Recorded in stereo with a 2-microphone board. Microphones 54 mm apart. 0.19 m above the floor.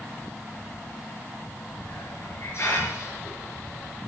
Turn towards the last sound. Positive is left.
turn(degrees=50)  # may be behind; listen again after turning